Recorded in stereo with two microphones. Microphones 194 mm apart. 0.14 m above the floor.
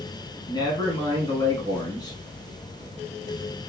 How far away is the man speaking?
About 1.0 m.